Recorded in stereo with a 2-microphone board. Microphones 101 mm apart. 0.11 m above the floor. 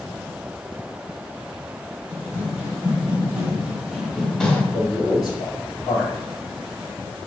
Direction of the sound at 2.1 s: 20° right (ahead or behind).